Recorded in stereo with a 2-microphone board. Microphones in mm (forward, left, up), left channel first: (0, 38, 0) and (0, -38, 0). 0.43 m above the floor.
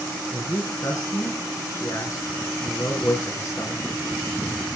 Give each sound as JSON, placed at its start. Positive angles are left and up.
{"t": 0.3, "sound": "a man speaking", "side_deg": 45, "distance_m": 5.0}